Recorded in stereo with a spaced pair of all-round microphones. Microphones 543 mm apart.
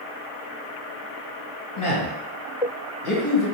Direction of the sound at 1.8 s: 60° left (ahead or behind).